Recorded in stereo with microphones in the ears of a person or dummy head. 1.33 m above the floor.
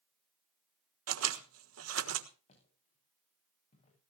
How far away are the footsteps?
About 9.5 m.